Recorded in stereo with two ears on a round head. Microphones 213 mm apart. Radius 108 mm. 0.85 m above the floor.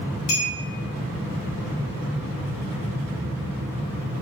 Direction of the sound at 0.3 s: 70° left (ahead or behind).